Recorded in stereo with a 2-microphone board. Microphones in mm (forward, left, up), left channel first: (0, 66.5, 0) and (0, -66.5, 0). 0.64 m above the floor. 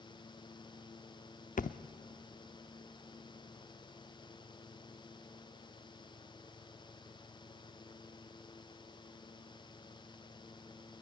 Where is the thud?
80° left, 0.5 m.